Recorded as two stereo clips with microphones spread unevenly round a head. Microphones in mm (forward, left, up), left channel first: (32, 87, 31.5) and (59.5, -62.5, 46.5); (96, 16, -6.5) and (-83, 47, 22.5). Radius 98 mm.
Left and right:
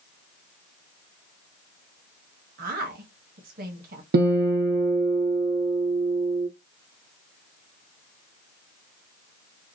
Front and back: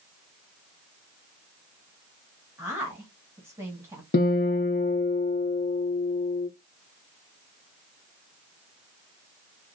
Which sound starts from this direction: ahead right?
A guitar, at 4.1 s.